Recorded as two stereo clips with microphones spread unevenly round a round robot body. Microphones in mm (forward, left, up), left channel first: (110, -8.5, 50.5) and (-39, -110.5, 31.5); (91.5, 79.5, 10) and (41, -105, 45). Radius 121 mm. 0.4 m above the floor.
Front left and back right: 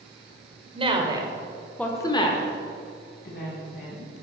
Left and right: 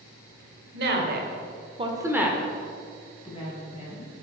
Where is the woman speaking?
105° right, 1.6 m; by 4.2 s 35° left, 2.5 m.